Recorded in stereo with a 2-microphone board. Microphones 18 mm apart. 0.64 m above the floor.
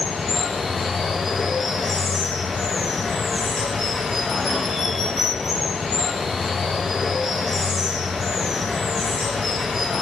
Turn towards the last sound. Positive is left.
turn(degrees=-20)  # may be behind; listen again after turning